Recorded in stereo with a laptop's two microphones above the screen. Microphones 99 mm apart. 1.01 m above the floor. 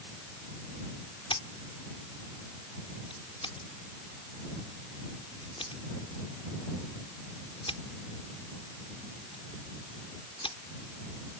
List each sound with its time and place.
1.3 s scissors: 65° left (ahead or behind)